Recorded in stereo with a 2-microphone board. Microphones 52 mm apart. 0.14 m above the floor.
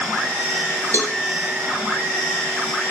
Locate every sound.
0.9 s a cowbell: 50° left (ahead or behind), 1.0 m